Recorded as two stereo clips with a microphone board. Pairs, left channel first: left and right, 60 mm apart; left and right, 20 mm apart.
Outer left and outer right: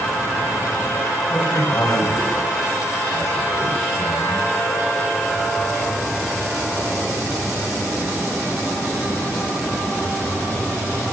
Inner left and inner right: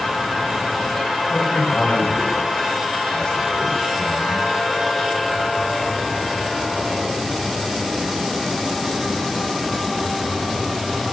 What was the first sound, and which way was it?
A man speaking, 50° left (ahead or behind).